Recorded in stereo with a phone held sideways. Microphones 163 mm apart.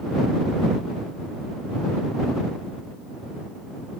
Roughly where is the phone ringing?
I don't hear a phone ringing.